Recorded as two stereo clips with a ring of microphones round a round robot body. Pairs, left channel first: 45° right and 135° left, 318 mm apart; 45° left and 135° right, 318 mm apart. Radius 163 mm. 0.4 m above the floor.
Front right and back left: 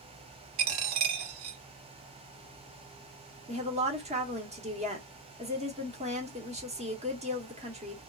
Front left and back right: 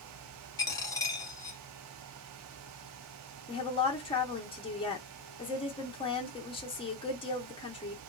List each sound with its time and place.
0.6 s a dropped coin: 125° left, 0.9 m
3.5 s a woman speaking: 95° left, 0.9 m